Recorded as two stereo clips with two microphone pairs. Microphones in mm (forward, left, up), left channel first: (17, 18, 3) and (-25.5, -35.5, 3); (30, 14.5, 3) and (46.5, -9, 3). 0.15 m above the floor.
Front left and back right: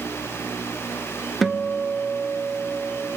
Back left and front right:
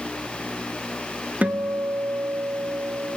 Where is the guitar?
40° right, 0.5 m.